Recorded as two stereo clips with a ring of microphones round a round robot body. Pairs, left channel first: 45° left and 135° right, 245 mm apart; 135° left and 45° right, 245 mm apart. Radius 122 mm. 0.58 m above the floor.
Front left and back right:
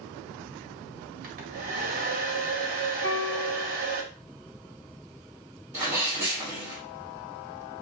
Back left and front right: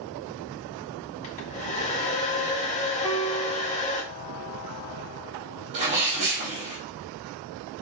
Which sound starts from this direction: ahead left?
A piano, at 3.0 s.